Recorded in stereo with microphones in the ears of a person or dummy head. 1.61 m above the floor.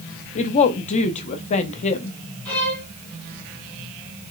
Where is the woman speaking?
35° left (ahead or behind), 0.6 m.